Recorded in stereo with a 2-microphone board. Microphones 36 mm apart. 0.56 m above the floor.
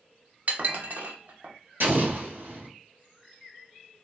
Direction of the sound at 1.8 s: 70° right (ahead or behind).